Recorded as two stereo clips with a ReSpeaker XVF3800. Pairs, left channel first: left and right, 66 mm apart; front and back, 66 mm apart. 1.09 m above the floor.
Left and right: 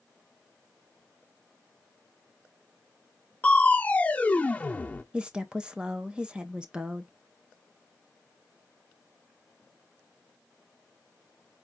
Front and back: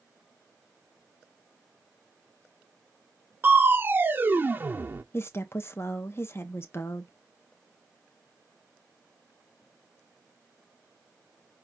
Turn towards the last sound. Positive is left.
turn(degrees=-20)